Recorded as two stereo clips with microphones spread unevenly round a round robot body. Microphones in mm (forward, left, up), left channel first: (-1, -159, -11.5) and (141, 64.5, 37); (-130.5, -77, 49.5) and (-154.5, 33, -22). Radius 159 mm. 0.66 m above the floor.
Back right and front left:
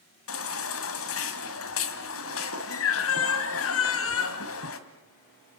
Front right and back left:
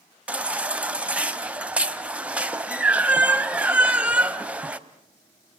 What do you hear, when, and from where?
0.3 s a baby crying: 175° right, 1.6 m